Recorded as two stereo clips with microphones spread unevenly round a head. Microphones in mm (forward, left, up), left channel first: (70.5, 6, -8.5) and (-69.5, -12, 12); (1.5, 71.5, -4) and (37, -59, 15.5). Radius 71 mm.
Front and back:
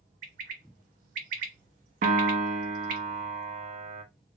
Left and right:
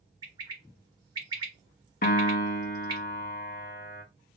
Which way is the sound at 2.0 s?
145° left.